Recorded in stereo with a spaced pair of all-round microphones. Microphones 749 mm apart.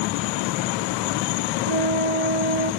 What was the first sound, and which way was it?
A flute, 45° left (ahead or behind).